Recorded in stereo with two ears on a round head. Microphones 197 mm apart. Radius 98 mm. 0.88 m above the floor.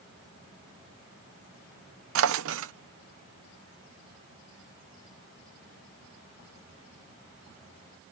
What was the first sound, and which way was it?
A drawer, 65° right (ahead or behind).